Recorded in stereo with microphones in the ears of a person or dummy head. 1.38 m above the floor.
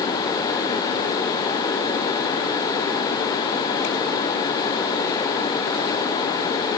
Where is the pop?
I don't hear a pop.